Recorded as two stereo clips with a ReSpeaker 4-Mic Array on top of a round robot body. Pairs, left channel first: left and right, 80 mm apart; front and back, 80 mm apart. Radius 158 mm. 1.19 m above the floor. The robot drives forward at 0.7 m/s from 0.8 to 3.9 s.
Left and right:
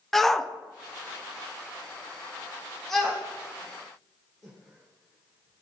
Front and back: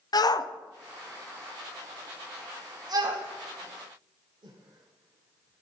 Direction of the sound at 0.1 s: 5° left.